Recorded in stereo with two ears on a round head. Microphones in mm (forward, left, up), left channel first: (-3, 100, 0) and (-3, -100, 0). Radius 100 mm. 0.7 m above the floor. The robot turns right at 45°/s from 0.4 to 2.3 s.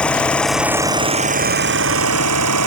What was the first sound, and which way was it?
An engine running, 175° left.